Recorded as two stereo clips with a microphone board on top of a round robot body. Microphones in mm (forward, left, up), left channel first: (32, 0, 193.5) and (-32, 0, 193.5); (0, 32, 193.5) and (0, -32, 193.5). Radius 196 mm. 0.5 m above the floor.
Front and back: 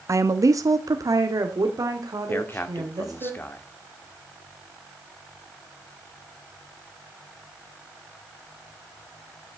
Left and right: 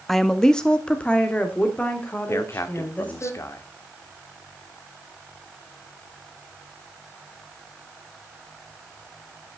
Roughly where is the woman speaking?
Behind.